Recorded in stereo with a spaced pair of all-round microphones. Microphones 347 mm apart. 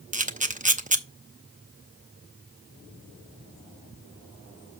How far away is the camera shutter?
About 0.7 m.